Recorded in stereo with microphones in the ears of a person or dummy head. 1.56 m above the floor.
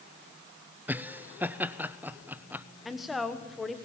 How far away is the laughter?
About 0.5 m.